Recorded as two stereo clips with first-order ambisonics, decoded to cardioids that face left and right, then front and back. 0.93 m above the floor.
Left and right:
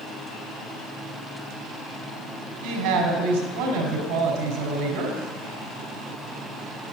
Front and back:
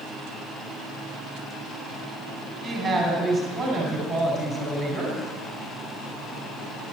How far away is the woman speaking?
About 5.5 m.